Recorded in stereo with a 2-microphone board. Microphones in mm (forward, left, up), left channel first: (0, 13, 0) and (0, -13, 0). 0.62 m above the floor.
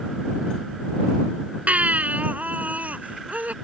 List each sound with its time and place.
1.7 s a baby crying: 80° right